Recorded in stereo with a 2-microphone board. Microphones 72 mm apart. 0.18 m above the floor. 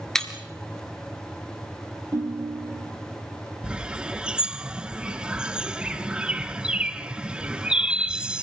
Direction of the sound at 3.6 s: 10° right (ahead or behind).